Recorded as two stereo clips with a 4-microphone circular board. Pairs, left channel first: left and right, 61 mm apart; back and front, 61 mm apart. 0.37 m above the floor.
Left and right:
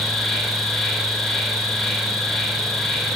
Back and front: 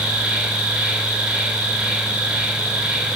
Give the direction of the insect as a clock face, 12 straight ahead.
11 o'clock.